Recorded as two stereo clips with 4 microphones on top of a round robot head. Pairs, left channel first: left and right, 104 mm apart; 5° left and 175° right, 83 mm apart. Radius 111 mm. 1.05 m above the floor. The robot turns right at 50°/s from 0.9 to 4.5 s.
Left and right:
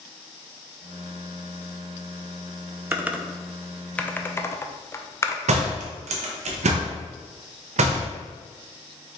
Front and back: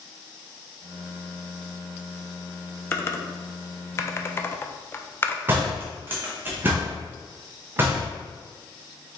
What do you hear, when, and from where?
2.9 s typing on a keyboard: 30° right, 0.6 m; by 5.4 s 45° left, 0.6 m
5.5 s a door slam: 105° right, 0.5 m